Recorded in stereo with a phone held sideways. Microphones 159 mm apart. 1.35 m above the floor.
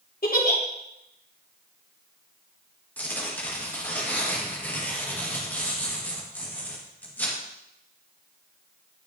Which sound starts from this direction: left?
A giggle, at 0.2 s.